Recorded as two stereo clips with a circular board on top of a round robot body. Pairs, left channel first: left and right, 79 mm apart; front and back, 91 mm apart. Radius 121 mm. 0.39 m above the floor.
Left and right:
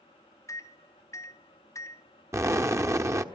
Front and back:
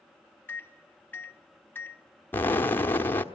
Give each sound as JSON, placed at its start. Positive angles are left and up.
{"t": 0.5, "sound": "a microwave", "azimuth_deg": 60, "distance_m": 0.8}
{"t": 2.3, "sound": "an explosion", "azimuth_deg": -60, "distance_m": 1.4}